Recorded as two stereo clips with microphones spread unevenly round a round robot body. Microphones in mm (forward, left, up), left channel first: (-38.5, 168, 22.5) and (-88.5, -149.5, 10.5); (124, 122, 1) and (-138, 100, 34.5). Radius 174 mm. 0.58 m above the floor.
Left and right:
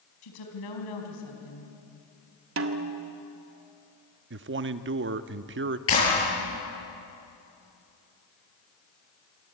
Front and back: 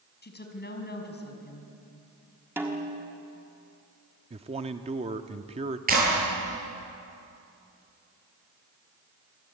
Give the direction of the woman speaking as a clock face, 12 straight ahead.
10 o'clock.